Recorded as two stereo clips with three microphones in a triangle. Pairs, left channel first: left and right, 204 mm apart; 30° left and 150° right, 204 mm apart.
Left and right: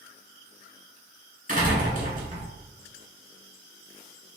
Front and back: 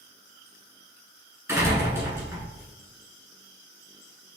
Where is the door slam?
80° right, 1.4 m.